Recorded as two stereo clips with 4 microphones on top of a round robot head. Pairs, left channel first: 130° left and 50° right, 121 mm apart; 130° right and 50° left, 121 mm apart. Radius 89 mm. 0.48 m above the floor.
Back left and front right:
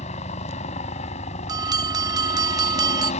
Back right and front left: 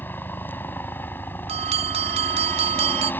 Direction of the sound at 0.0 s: 155° left.